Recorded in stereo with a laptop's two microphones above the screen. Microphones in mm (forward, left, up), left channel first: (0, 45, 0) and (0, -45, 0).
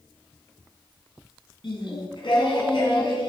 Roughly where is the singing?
Left.